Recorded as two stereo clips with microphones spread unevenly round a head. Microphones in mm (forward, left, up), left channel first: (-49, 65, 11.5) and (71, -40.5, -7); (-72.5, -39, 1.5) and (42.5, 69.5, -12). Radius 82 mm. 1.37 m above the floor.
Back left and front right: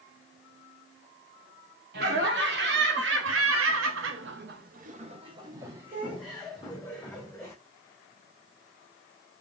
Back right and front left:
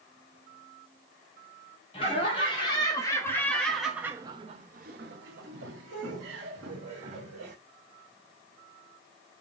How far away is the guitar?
No guitar in this recording.